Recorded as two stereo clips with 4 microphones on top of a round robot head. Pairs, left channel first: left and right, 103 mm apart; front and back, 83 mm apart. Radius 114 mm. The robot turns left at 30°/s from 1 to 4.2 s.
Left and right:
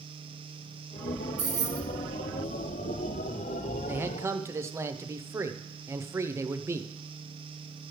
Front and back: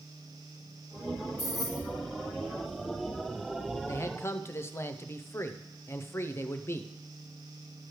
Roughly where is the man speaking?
Ahead right.